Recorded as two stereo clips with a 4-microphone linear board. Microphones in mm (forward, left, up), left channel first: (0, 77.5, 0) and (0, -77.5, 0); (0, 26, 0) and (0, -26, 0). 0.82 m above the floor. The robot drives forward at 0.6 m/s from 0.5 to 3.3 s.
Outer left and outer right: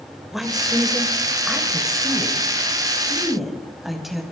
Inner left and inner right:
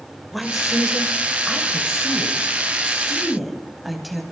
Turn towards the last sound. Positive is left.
turn(degrees=0)  # may be behind; listen again after turning